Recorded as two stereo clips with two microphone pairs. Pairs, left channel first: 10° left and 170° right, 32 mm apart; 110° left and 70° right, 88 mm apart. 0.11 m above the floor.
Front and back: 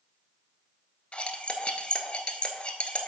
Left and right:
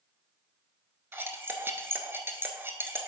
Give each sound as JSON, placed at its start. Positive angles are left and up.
{"t": 1.1, "sound": "cutlery clinking", "azimuth_deg": -15, "distance_m": 0.9}